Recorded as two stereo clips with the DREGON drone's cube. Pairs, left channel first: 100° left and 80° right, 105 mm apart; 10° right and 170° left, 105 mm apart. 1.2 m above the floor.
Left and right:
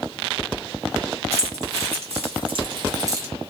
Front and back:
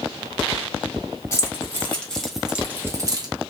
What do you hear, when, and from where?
1.3 s keys jangling: 75° right, 1.3 m; by 3.3 s 140° right, 0.8 m